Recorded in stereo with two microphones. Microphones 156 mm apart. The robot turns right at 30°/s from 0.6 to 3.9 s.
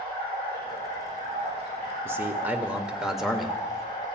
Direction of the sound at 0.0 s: 70° right.